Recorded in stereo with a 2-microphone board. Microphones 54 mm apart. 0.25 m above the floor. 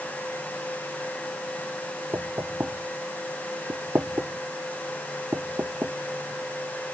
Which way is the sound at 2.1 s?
55° right (ahead or behind).